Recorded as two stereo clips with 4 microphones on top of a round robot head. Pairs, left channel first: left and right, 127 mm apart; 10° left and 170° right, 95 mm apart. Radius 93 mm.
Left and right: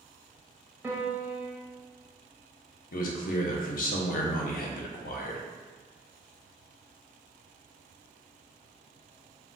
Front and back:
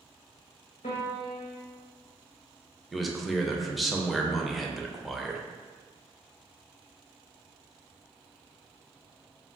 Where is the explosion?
I don't hear an explosion.